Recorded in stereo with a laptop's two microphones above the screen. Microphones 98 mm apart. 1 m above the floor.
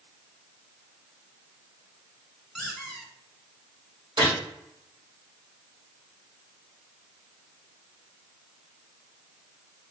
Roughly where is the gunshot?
Right.